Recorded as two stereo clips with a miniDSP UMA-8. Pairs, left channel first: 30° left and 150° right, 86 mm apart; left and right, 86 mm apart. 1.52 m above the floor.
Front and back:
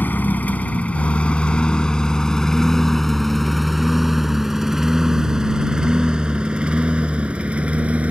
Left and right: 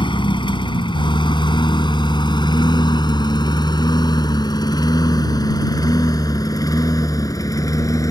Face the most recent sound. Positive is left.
turn(degrees=140)